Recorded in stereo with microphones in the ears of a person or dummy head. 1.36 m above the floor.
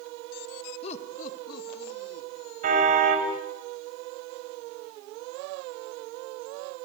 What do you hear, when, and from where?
0.8 s laughter: 35° left (ahead or behind), 2 m; by 2.3 s 65° left (ahead or behind), 3.5 m
2.6 s a car horn: 50° right (ahead or behind), 4 m